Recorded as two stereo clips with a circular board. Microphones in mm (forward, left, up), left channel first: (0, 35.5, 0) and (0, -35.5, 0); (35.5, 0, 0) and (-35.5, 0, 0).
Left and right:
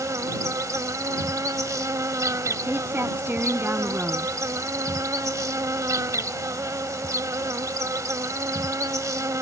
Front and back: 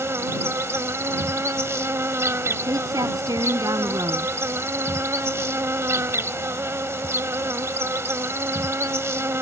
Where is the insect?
130° right.